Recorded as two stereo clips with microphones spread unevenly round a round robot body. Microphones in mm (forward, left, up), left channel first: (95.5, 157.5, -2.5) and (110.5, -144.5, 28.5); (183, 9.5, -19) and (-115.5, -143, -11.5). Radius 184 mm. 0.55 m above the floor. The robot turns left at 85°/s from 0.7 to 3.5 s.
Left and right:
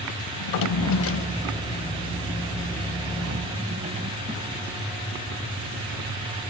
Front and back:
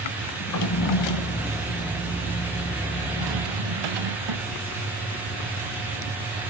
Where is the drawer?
75° left, 1.1 m; by 4.6 s 160° right, 1.1 m.